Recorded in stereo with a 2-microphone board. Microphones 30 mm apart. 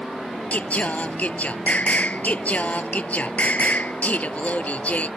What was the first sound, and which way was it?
Singing, 50° left (ahead or behind).